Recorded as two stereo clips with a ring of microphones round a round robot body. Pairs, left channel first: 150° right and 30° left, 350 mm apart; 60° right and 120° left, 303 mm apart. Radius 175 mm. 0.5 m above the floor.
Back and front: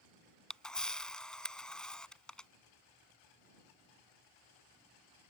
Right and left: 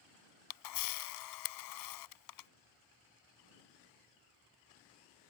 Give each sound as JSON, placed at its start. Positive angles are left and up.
{"t": 0.5, "sound": "a camera shutter", "azimuth_deg": -60}